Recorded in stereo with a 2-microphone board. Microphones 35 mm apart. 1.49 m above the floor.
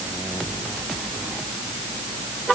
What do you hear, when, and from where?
Only background noise.